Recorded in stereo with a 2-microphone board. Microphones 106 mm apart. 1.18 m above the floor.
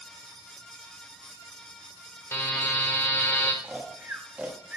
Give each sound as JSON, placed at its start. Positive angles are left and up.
{"t": 2.3, "sound": "a buzzer", "side_deg": 25, "distance_m": 1.2}
{"t": 3.6, "sound": "snoring", "side_deg": -15, "distance_m": 1.1}